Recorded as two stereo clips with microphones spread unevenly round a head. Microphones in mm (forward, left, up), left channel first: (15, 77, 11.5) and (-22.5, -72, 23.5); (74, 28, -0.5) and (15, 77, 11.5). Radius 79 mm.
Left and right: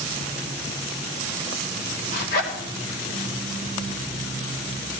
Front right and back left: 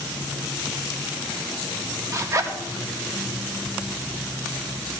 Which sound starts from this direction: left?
A zipper, at 2.1 s.